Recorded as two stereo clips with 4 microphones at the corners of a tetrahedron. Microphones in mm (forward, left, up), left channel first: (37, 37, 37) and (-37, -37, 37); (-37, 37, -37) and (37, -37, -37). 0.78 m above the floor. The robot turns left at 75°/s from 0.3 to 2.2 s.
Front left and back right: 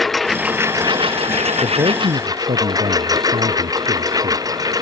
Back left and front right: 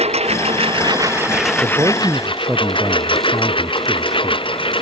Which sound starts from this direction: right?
A man speaking, at 1.6 s.